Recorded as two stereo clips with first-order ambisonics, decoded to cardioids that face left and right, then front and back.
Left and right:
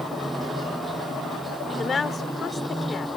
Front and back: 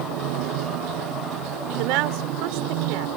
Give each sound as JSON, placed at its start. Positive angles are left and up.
{"t": 0.0, "sound": "running water", "azimuth_deg": -170}
{"t": 1.8, "sound": "a woman speaking", "azimuth_deg": 165}